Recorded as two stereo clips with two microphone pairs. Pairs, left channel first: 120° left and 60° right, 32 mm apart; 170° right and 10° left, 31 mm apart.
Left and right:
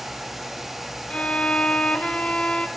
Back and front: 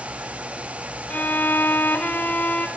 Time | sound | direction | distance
1.1 | a violin | 175° left | 1.4 m